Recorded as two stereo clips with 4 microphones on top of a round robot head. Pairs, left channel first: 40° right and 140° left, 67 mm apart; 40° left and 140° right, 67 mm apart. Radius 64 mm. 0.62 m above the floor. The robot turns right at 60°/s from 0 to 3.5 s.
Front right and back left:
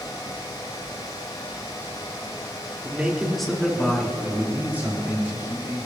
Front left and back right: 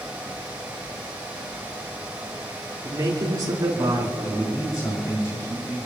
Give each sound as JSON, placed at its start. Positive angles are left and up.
{"t": 2.8, "sound": "a man speaking", "azimuth_deg": -160, "distance_m": 2.0}
{"t": 4.2, "sound": "a man speaking", "azimuth_deg": 75, "distance_m": 4.5}